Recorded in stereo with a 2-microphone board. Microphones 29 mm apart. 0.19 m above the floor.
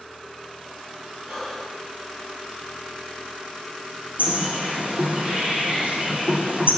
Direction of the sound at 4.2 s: 55° right (ahead or behind).